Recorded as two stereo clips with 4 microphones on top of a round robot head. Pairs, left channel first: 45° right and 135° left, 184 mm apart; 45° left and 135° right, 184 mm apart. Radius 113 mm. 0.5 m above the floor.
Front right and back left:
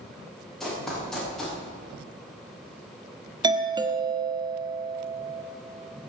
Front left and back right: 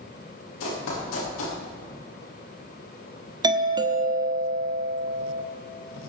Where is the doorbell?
Straight behind, 1.4 m.